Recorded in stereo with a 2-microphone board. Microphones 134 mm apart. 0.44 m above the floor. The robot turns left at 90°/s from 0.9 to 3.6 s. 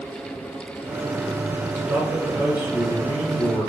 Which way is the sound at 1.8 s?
155° right.